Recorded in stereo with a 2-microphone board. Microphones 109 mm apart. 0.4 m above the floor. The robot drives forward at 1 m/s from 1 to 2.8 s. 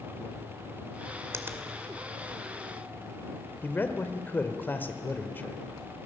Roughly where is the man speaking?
Centre.